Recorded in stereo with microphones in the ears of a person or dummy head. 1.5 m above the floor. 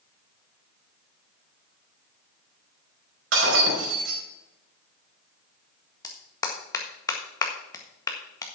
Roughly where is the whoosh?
I don't hear a whoosh.